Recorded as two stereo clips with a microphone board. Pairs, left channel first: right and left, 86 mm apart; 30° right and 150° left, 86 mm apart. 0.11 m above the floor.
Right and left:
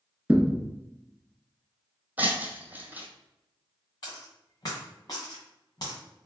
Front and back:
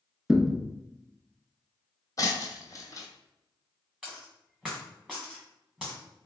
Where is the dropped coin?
130° right, 1.5 m.